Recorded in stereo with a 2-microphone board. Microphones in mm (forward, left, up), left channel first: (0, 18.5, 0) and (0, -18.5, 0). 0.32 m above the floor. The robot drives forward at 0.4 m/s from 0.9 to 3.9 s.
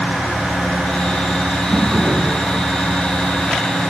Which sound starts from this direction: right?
A drawer, at 1.7 s.